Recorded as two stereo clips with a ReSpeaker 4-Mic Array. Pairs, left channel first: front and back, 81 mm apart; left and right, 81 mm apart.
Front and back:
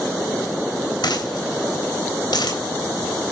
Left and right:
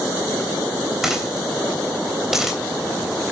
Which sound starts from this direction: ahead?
A dropped coin, at 1.0 s.